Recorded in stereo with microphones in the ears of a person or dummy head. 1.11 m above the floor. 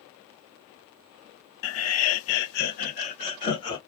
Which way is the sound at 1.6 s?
70° left (ahead or behind).